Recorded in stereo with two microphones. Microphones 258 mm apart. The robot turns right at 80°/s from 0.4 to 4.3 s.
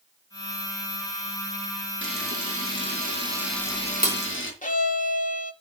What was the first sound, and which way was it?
A camera shutter, 55° right (ahead or behind).